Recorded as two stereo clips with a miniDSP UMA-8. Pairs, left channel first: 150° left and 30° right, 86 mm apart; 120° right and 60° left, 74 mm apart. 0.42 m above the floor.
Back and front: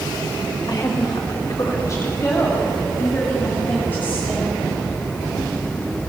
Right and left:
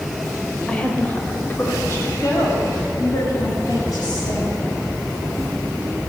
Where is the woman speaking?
165° left, 1.4 m; by 4.6 s 140° right, 3 m.